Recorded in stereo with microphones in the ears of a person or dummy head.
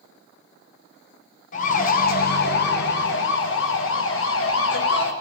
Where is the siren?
50° left (ahead or behind), 2 m; by 5.1 s 75° left (ahead or behind), 3.5 m.